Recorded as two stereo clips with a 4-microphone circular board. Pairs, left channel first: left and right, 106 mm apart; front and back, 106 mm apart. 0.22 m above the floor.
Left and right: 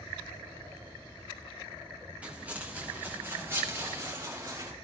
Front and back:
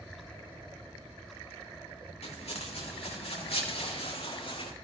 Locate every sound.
2.2 s footsteps: 10° right, 5 m; by 4.7 s 35° right, 4.5 m